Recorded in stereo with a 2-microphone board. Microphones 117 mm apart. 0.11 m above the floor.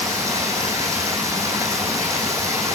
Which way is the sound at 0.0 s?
25° right (ahead or behind).